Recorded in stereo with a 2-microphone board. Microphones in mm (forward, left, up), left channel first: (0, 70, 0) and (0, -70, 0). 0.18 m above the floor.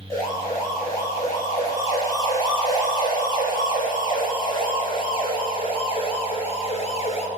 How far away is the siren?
About 7 m.